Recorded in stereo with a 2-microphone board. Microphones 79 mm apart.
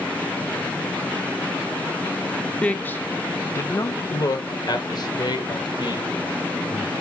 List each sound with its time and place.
2.6 s a man speaking: 15° left (ahead or behind), 1.2 m; by 6.9 s 70° left (ahead or behind), 3 m